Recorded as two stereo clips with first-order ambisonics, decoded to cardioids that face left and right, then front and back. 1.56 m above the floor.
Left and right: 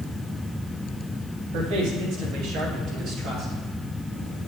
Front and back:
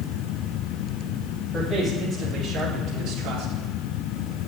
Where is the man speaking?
100° right, 3 m; by 3.5 s 145° right, 2.5 m.